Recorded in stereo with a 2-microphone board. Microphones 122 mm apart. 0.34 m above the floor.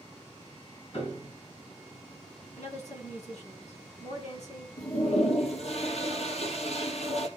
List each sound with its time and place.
0.9 s a piano: 55° left (ahead or behind), 3 m
2.6 s a woman speaking: 65° left (ahead or behind), 3 m
4.8 s a toilet flushing: 60° left (ahead or behind), 2.0 m